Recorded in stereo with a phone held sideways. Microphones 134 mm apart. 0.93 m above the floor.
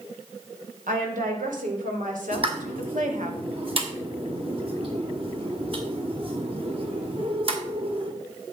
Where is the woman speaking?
80° right, 4.5 m; by 3.3 s 65° right (ahead or behind), 1.9 m.